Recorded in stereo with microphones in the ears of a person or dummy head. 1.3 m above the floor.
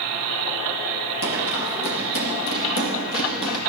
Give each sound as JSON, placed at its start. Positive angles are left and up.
{"t": 1.2, "sound": "running footsteps", "side_deg": 75, "distance_m": 4.5}